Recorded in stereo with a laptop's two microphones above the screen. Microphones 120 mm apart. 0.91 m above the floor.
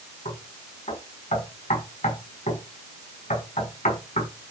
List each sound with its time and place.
0.2 s knocking: 85° left, 6.5 m